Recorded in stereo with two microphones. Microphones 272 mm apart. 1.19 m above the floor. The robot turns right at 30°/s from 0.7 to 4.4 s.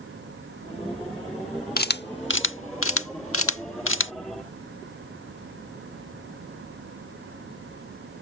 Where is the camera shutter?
35° left (ahead or behind); by 4.1 s 45° left (ahead or behind).